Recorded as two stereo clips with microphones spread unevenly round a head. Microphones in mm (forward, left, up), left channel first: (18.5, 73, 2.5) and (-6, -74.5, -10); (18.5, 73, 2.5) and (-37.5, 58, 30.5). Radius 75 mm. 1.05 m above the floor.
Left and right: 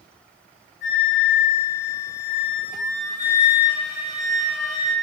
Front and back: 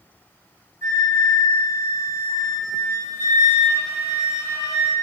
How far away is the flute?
About 1.0 m.